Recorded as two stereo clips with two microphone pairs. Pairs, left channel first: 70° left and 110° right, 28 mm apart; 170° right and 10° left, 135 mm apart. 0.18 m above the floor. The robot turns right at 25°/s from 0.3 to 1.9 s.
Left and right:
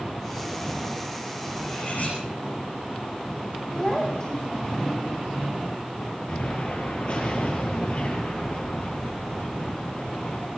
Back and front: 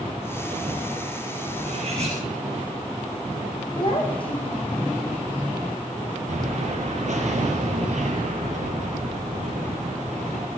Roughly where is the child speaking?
Behind left.